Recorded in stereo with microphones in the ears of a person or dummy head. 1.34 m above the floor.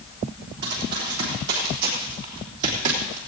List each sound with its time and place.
0.6 s running footsteps: 70° right (ahead or behind), 5 m; by 3.2 s 60° right (ahead or behind), 3 m